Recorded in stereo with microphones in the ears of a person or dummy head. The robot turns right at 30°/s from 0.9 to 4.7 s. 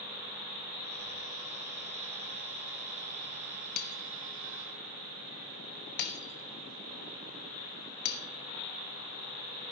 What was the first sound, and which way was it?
Breaking glass, 60° left (ahead or behind).